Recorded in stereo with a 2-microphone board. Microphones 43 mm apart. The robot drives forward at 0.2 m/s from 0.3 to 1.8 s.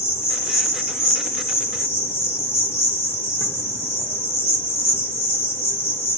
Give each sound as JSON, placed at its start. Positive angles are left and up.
{"t": 0.0, "sound": "an insect", "side_deg": 75, "distance_m": 0.7}